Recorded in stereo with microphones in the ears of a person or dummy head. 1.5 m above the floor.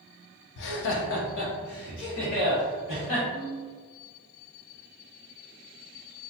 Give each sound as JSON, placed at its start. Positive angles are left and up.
{"t": 0.6, "sound": "laughter", "side_deg": 60, "distance_m": 0.5}
{"t": 3.3, "sound": "a ringtone", "side_deg": 40, "distance_m": 1.1}